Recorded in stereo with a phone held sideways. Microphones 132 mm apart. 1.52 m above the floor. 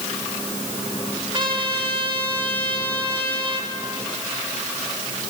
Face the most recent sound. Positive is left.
turn(degrees=-40)  # may be behind; listen again after turning